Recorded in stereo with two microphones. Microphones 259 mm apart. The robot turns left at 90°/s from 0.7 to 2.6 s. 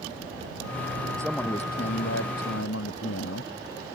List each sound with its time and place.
1.2 s a man speaking: 165° right; by 3.5 s 65° left